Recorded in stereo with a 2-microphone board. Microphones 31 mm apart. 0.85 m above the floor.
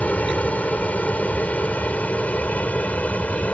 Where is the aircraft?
55° left (ahead or behind).